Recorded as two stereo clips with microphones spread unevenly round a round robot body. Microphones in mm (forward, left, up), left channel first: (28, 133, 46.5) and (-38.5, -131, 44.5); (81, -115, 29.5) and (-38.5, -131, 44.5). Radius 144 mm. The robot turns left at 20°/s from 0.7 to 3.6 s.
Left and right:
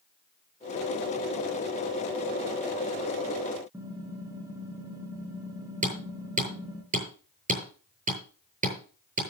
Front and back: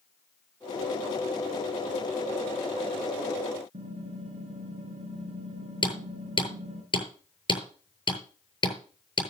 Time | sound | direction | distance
3.7 | typing on a keyboard | 175° left | 3 m
5.8 | hammering | 40° right | 8 m